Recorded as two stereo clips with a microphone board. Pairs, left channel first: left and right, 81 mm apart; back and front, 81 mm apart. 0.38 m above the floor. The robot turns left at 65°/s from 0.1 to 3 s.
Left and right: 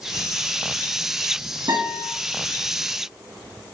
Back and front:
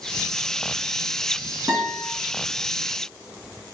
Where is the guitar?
85° right, 3.5 m; by 2.1 s 110° right, 3.5 m.